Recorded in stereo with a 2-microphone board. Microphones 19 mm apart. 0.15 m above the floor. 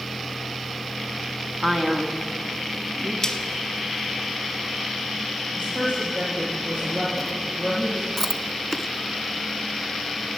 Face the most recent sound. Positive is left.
turn(degrees=5)  # may be behind; listen again after turning